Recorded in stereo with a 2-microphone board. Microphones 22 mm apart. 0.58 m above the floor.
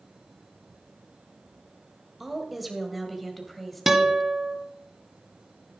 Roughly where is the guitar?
Centre.